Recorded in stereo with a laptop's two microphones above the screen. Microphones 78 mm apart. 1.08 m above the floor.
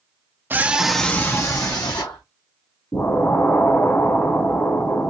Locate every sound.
0.5 s a scream: 25° right (ahead or behind), 0.7 m; by 2.2 s 60° left (ahead or behind), 1.1 m
2.9 s an explosion: 35° left (ahead or behind), 1.2 m